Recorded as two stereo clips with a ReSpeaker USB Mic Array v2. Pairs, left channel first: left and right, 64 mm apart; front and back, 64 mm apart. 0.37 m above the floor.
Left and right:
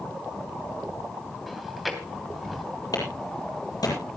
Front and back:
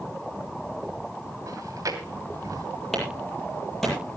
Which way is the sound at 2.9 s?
90° left.